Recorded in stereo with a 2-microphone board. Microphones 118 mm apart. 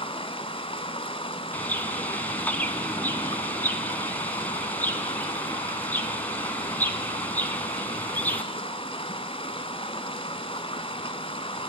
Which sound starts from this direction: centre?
A bird, at 1.5 s.